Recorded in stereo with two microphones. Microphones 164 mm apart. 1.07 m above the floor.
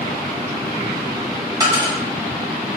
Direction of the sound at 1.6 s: 25° right (ahead or behind).